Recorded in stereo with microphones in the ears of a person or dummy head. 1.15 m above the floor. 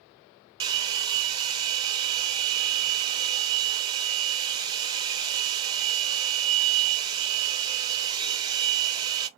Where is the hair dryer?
25° right (ahead or behind), 0.5 m.